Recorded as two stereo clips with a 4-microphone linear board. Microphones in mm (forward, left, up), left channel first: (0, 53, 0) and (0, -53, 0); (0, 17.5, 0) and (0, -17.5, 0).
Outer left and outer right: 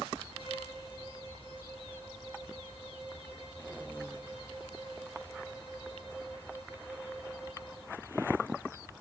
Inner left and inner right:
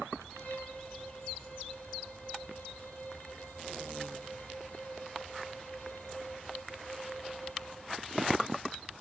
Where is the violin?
60° left (ahead or behind), 2.5 m.